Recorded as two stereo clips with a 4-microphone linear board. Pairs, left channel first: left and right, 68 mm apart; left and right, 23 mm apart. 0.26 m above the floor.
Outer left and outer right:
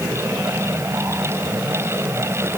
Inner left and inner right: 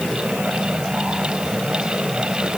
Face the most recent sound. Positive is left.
No sound to turn to.